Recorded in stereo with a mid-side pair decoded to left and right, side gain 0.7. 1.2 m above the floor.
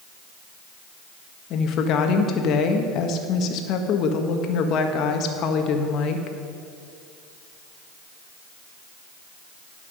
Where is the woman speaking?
55° left, 1.4 m.